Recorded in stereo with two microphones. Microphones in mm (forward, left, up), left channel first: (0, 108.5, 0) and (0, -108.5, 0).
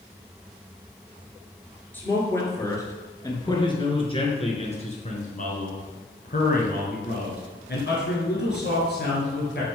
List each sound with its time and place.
1.9 s a man speaking: 10° left (ahead or behind), 3 m; by 9.7 s 50° left (ahead or behind), 3 m